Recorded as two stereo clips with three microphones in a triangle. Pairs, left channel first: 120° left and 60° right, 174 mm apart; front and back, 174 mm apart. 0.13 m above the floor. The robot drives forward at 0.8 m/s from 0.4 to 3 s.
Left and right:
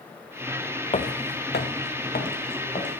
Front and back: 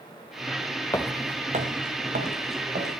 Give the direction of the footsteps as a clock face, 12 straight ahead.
10 o'clock.